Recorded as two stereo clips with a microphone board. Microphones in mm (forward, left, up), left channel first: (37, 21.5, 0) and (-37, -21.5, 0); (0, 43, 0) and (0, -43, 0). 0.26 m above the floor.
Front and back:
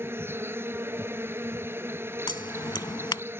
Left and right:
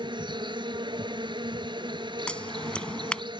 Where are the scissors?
15° left.